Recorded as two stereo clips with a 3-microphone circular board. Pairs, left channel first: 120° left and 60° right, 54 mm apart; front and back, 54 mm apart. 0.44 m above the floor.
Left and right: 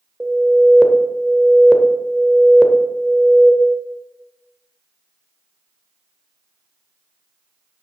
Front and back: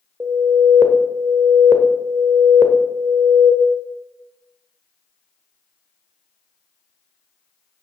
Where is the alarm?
140° right, 1.0 m.